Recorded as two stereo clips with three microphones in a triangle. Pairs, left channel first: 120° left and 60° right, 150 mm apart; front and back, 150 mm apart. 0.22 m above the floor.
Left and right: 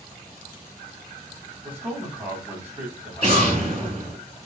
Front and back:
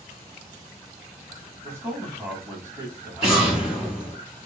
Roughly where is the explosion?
Right.